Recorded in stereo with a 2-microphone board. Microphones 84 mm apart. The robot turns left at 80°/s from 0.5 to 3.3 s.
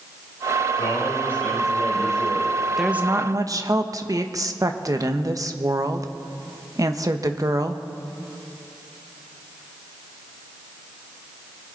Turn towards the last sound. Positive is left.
turn(degrees=-45)